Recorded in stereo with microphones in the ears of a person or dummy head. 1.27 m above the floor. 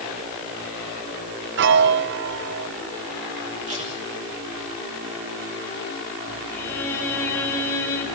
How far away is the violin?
About 6.5 m.